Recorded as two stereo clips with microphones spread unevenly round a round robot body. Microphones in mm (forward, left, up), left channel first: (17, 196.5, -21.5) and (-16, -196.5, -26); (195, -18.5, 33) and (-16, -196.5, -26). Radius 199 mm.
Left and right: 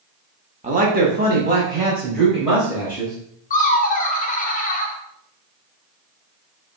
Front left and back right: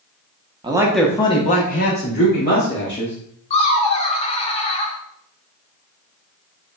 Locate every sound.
0.6 s a man speaking: 150° right, 0.8 m; by 3.2 s 15° right, 2.5 m
3.5 s laughter: 105° left, 0.5 m